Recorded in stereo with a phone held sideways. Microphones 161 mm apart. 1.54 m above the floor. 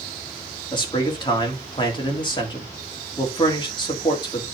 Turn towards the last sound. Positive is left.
turn(degrees=30)  # may be behind; listen again after turning